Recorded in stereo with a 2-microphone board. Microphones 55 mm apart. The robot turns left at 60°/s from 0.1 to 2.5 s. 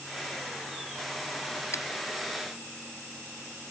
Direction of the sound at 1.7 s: 60° left (ahead or behind).